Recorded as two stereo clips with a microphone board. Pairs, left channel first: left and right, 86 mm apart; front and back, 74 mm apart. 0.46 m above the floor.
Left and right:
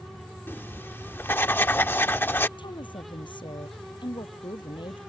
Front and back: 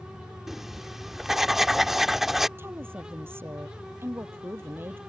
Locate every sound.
0.5 s writing: 100° left
2.6 s a woman speaking: 120° left